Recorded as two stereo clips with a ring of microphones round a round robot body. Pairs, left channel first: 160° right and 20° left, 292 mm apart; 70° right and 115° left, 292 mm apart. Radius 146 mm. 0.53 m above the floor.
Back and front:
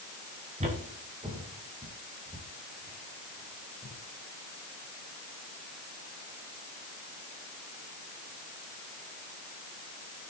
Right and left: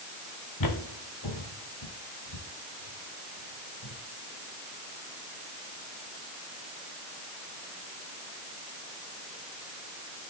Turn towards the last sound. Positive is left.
turn(degrees=-80)